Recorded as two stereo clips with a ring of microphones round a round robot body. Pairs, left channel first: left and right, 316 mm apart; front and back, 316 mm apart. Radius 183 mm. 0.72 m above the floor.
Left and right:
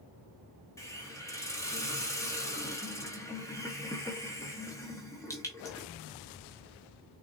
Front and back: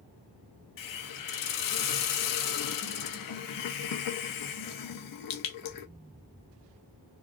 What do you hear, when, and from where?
0.8 s a hiss: 10° left, 0.7 m